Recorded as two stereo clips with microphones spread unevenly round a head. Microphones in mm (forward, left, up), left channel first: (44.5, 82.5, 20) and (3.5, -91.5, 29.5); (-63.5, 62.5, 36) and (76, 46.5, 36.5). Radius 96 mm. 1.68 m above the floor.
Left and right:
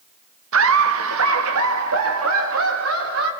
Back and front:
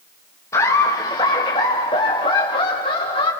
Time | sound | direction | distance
0.5 | laughter | 110° right | 1.7 m